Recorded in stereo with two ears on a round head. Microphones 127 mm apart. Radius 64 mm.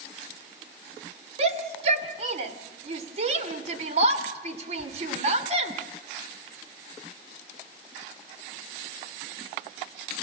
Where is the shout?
50° right (ahead or behind), 2.5 m.